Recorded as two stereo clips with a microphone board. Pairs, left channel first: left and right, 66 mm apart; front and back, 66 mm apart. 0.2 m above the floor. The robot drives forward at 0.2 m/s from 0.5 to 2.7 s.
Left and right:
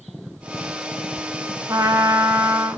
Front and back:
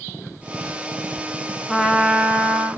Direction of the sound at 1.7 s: 90° right.